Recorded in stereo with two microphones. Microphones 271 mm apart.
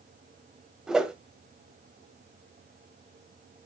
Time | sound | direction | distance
0.9 | a whoosh | centre (ahead or behind) | 1.0 m